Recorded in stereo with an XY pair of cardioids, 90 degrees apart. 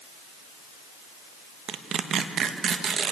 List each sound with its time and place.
1.7 s tearing paper: 65° right, 1.4 m